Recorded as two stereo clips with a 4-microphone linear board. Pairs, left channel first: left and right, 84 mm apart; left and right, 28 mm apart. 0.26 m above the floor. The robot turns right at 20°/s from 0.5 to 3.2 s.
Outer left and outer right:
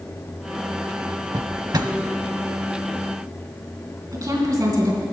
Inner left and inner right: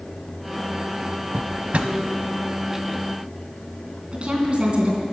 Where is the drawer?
50° right (ahead or behind), 0.7 m.